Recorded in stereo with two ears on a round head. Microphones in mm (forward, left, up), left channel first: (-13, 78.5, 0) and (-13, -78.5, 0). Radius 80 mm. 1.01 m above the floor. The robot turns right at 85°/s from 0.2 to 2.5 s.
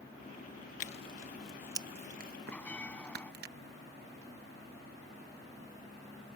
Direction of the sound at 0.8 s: 50° left (ahead or behind).